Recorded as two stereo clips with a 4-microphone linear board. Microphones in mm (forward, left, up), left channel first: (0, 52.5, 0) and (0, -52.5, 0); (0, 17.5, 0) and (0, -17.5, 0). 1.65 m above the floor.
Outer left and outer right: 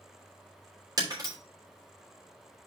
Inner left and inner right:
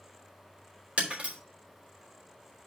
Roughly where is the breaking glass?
Right.